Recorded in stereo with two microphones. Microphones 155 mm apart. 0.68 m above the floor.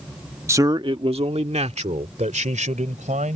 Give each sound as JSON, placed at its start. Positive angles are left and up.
{"t": 0.5, "sound": "a man speaking", "side_deg": -20}